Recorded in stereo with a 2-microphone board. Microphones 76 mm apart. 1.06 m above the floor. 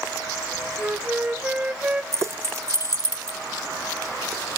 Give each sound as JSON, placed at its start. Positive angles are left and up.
{"t": 0.8, "sound": "a flute", "side_deg": -20, "distance_m": 0.6}
{"t": 2.1, "sound": "keys jangling", "side_deg": -35, "distance_m": 1.0}